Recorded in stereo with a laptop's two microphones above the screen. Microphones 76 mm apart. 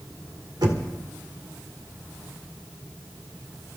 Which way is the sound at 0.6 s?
70° right (ahead or behind).